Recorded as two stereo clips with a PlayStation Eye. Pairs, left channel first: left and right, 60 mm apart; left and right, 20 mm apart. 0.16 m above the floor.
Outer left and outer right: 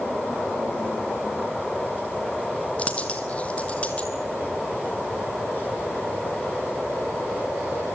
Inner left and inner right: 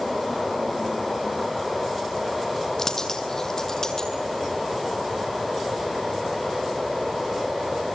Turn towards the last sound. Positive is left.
turn(degrees=20)  # may be behind; listen again after turning